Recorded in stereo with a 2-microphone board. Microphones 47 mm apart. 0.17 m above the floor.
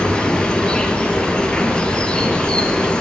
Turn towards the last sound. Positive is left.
turn(degrees=20)  # may be behind; listen again after turning